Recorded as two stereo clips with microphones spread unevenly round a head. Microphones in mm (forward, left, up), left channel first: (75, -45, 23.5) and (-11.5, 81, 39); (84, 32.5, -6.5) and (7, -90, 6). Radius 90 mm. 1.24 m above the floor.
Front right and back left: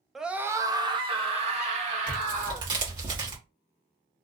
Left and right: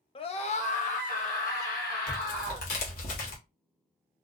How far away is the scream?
About 0.6 m.